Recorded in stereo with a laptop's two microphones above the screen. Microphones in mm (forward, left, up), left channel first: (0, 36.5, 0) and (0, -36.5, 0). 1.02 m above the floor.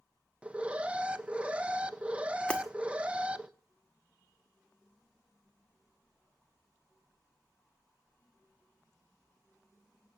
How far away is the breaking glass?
About 1.8 m.